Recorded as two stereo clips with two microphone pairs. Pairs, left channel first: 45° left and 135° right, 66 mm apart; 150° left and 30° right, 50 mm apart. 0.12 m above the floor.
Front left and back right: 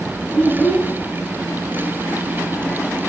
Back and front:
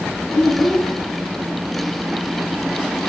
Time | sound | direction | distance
0.3 | a child speaking | 95° left | 1.2 m